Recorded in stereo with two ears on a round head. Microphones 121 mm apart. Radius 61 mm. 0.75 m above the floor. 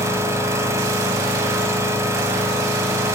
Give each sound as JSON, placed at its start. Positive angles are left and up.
{"t": 0.0, "sound": "an engine running", "side_deg": -20, "distance_m": 1.2}